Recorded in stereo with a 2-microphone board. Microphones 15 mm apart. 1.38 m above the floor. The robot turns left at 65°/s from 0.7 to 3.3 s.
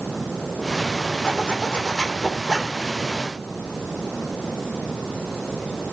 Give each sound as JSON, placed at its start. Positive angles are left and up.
{"t": 1.2, "sound": "a zipper", "azimuth_deg": 100, "distance_m": 3.5}